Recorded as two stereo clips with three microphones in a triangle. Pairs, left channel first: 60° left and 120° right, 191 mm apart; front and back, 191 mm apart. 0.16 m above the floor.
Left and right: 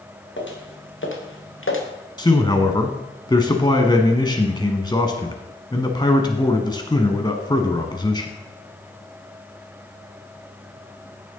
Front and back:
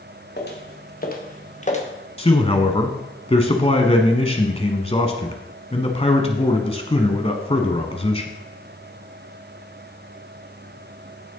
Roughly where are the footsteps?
Ahead left.